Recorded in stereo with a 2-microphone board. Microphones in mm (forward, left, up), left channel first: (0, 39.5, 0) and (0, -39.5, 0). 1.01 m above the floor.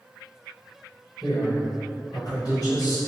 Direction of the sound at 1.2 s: 50° left (ahead or behind).